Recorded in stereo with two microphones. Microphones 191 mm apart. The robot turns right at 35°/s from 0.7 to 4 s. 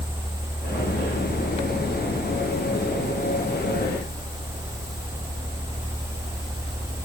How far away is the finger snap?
I don't hear a finger snap.